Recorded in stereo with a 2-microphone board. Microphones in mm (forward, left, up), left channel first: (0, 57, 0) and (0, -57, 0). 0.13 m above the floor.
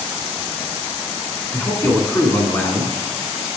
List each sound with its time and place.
1.5 s a man speaking: 20° left (ahead or behind), 1.2 m